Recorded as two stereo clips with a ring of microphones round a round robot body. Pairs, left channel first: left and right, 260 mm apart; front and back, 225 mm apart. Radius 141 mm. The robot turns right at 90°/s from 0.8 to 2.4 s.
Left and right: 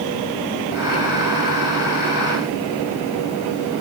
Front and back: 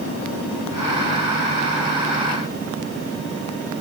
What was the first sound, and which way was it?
Only background noise.